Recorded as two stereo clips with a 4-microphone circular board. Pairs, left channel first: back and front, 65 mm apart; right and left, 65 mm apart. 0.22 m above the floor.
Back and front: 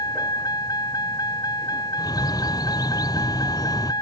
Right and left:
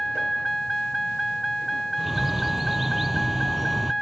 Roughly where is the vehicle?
Behind.